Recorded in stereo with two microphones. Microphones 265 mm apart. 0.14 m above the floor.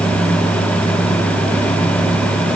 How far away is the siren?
No siren in this recording.